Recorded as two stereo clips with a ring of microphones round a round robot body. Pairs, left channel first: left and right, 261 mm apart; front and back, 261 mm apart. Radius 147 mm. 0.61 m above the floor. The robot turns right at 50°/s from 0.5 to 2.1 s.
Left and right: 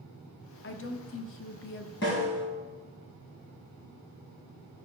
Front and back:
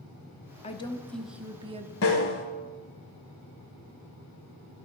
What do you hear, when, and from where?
0.6 s a woman speaking: 60° left, 0.8 m; by 1.9 s 125° left, 0.8 m
2.0 s a snare drum: 35° left, 1.4 m; by 2.5 s 40° left, 1.4 m